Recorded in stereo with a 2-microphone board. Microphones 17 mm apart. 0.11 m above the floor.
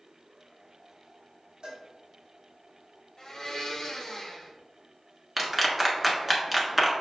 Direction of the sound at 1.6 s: 50° right (ahead or behind).